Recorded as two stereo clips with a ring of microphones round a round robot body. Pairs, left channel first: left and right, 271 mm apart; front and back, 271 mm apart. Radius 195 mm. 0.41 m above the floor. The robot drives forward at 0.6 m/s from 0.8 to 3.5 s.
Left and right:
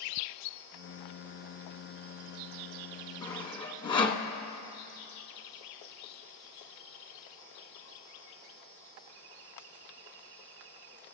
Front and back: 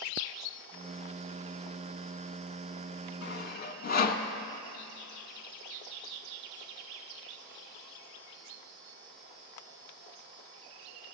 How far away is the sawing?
About 1.0 m.